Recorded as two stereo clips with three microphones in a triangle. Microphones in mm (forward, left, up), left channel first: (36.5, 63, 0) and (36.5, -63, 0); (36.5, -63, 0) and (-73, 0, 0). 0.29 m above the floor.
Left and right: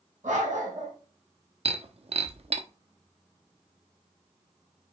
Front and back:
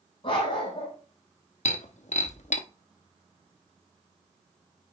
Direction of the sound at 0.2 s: 75° right.